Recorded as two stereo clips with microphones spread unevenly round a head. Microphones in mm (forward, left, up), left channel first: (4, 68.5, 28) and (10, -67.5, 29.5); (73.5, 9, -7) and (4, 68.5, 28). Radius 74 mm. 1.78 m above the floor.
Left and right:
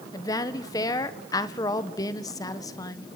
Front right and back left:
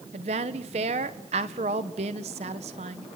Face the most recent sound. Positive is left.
turn(degrees=160)